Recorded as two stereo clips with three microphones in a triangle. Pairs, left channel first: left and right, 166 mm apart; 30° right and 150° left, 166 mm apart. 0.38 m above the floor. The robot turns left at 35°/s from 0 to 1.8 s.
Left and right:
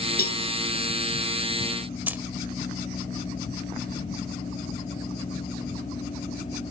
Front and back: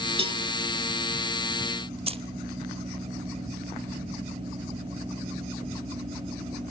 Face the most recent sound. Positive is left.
turn(degrees=-165)